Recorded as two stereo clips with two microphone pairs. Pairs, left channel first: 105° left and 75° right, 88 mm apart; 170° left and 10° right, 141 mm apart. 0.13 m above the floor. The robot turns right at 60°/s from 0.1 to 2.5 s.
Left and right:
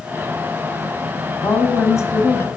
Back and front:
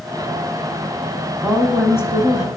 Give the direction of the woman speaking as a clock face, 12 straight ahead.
9 o'clock.